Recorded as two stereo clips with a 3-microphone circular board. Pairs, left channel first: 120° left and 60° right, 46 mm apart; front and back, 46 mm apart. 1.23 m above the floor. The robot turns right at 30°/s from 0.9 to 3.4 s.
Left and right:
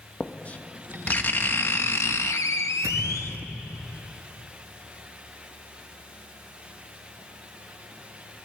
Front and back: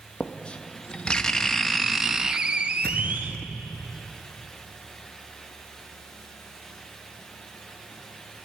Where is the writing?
65° left, 0.9 m; by 3.4 s 135° left, 0.9 m.